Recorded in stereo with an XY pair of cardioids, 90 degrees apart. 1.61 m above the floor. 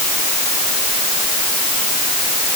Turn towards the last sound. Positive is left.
No sound to turn to.